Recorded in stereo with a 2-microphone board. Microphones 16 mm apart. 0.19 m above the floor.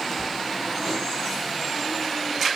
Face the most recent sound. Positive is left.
turn(degrees=20)  # may be behind; listen again after turning